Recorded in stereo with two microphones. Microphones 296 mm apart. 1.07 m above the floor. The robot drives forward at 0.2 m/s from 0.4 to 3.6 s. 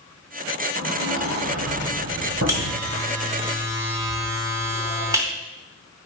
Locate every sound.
0.8 s a sliding door: 55° right (ahead or behind), 4.5 m; by 3.0 s 60° right (ahead or behind), 4 m
2.5 s a buzzer: 10° right (ahead or behind), 2.5 m